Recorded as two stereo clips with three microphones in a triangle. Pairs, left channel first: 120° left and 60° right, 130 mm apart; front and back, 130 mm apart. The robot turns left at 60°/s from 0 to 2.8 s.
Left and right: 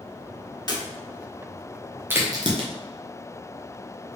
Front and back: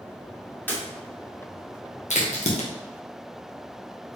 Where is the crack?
10° left, 1.1 m; by 2.7 s 25° right, 1.1 m.